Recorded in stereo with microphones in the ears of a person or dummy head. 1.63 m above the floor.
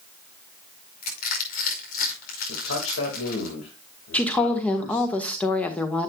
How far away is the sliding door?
No sliding door in this recording.